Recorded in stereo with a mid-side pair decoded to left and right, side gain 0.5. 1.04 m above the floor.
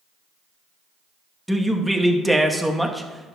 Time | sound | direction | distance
1.5 | a man speaking | 5° right | 1.1 m